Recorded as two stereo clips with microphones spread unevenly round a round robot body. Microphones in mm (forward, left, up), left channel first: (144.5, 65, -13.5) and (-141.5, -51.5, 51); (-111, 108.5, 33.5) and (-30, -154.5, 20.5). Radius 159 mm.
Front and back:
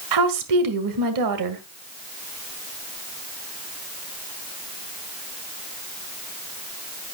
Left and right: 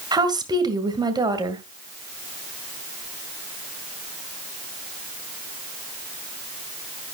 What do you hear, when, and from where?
0.1 s a woman speaking: 145° right, 2.0 m